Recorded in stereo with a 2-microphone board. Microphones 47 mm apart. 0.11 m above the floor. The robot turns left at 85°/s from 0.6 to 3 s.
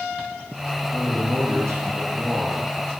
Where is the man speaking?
35° right, 4.5 m; by 2.7 s 175° left, 4.5 m.